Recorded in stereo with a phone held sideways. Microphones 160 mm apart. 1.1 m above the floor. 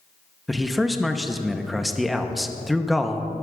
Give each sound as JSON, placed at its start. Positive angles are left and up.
{"t": 0.5, "sound": "a man speaking", "side_deg": 0, "distance_m": 0.8}